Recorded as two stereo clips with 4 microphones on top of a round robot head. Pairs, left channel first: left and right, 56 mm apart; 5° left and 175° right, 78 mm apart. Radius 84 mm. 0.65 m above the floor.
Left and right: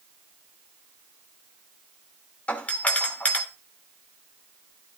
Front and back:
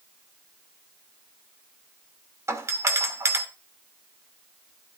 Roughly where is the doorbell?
Behind left.